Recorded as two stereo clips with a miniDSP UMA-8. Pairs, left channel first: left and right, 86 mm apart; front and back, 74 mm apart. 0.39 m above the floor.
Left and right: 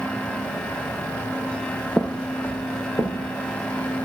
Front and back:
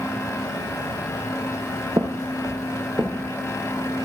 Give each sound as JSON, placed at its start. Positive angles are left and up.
{"t": 2.0, "sound": "footsteps", "azimuth_deg": 180, "distance_m": 0.7}